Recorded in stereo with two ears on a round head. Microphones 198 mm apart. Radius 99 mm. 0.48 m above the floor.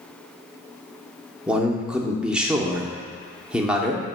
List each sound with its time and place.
1.5 s a man speaking: 5° right (ahead or behind), 0.7 m